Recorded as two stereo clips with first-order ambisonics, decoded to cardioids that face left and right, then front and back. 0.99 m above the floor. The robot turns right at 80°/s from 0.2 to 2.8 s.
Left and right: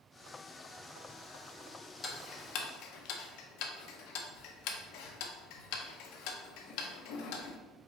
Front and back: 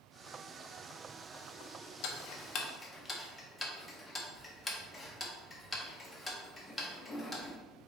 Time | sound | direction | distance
2.0 | ticking | 15° left | 0.6 m